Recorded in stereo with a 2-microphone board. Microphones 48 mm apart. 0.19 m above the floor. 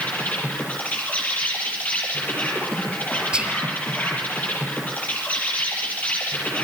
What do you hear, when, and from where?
0.0 s an insect: 30° left (ahead or behind), 8.5 m
3.3 s whispering: 20° right (ahead or behind), 4.5 m